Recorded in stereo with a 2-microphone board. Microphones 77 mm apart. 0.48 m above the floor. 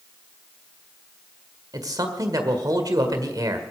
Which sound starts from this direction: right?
A man speaking, at 1.7 s.